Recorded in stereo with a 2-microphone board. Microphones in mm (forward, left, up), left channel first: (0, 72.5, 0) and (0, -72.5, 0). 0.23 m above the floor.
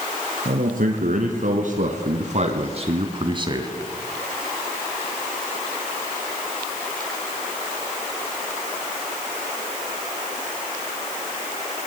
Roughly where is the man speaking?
Right.